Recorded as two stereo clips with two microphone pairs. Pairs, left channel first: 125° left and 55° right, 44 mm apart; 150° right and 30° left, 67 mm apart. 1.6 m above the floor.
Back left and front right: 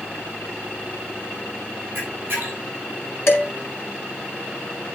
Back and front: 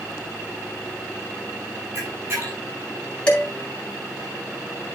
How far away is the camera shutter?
About 5.5 m.